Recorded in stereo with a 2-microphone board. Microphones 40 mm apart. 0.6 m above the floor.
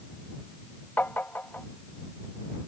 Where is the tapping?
55° left (ahead or behind).